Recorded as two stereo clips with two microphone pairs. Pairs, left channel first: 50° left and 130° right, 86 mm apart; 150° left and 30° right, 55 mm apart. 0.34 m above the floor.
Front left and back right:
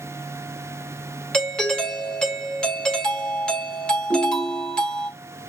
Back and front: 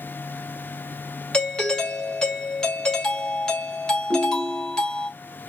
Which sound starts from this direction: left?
A doorbell, at 1.3 s.